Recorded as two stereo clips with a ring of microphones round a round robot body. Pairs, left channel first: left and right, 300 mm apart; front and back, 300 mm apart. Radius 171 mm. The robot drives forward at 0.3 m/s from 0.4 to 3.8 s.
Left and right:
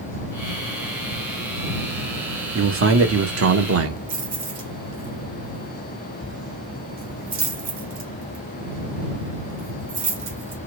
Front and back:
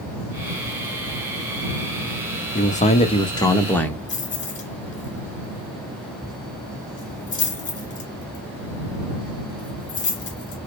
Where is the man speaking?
60° right, 1.2 m; by 4.0 s 85° right, 1.1 m.